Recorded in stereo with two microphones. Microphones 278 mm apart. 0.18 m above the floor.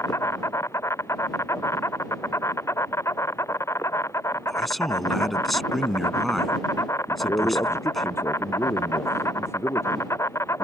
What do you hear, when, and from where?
0.0 s an insect: 10° left (ahead or behind)
4.5 s a man speaking: centre (ahead or behind)
7.1 s a man speaking: 10° left (ahead or behind)